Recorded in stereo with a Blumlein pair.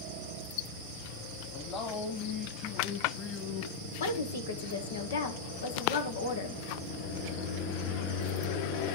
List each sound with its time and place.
1.5 s a man speaking: 30° left, 1.9 m
4.0 s a woman speaking: 65° left, 1.3 m